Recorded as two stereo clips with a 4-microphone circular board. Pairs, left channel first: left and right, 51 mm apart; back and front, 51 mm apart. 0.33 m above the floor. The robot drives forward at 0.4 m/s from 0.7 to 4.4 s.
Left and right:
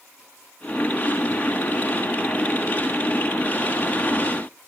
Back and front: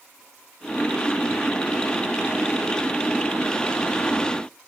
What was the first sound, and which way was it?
Only background noise.